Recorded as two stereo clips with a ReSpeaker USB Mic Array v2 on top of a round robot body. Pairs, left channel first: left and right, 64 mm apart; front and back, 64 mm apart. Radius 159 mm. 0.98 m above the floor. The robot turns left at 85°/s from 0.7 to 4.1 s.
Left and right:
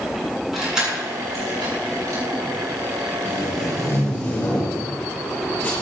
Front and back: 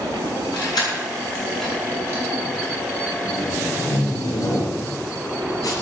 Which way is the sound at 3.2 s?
105° left.